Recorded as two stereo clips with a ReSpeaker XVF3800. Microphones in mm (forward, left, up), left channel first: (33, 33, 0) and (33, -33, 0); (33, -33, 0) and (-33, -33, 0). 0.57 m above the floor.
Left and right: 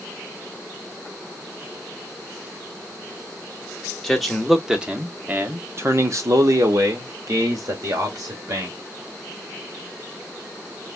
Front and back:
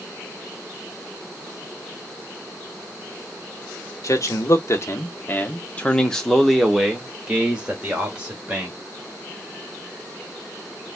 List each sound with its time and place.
4.0 s a man speaking: 5° left, 1.1 m; by 8.8 s 115° right, 2 m